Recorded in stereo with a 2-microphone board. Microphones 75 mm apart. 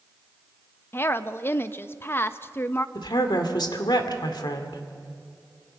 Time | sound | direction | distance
0.9 | a woman speaking | 30° left (ahead or behind) | 0.7 m
3.0 | a woman speaking | 70° left (ahead or behind) | 2 m